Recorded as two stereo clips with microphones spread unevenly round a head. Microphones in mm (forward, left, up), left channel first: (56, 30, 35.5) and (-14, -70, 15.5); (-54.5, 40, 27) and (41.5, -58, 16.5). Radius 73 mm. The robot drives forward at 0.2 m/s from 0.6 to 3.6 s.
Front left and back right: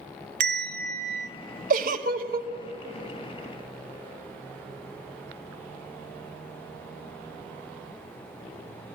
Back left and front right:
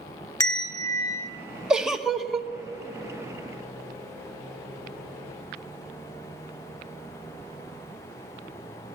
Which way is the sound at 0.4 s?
160° right.